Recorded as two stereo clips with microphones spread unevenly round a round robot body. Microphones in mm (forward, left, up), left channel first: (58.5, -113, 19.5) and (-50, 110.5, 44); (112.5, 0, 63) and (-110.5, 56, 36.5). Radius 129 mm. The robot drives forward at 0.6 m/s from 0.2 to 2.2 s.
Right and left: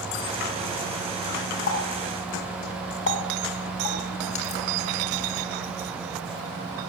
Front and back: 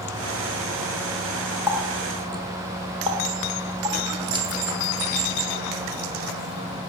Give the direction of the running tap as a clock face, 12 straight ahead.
4 o'clock.